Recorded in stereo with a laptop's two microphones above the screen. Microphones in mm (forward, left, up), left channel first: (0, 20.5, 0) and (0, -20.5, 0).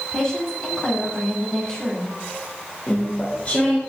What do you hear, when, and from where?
0.1 s a woman speaking: 15° left (ahead or behind), 6 m
2.9 s chewing: 30° left (ahead or behind), 3 m